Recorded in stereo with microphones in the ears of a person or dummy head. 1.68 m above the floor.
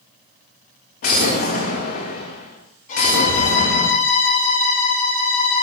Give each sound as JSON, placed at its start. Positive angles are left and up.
{"t": 1.0, "sound": "an explosion", "side_deg": 45, "distance_m": 1.5}
{"t": 2.9, "sound": "a violin", "side_deg": 50, "distance_m": 5.0}